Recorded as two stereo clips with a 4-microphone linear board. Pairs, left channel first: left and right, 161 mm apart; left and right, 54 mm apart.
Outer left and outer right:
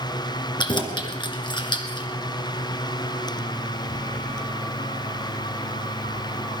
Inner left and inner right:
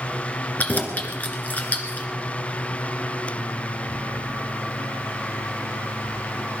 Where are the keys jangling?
30° left (ahead or behind), 1.7 m.